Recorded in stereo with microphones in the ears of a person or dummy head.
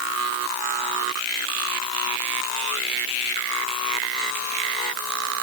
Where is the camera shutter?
No camera shutter in this recording.